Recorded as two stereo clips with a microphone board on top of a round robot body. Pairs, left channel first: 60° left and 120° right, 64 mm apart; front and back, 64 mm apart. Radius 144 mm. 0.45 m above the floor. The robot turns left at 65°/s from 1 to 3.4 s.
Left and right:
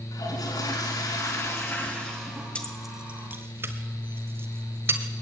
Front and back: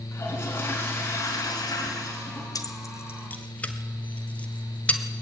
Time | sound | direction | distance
0.1 | a toilet flushing | 55° left | 4.5 m
2.5 | keys jangling | 10° right | 1.6 m